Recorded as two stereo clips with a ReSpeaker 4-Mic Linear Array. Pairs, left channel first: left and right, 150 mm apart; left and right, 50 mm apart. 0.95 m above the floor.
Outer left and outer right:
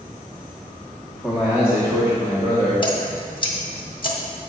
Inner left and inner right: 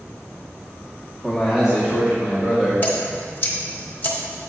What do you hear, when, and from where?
1.1 s a man speaking: 5° left (ahead or behind), 1.2 m; by 2.7 s 35° right (ahead or behind), 2.5 m
2.8 s dripping: 35° left (ahead or behind), 1.4 m